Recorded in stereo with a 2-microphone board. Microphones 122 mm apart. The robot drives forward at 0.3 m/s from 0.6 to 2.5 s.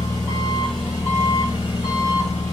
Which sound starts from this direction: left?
An engine running, at 0.0 s.